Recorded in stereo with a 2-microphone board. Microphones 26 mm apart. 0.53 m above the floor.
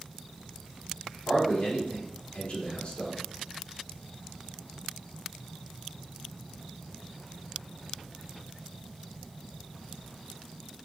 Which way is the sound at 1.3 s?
45° left (ahead or behind).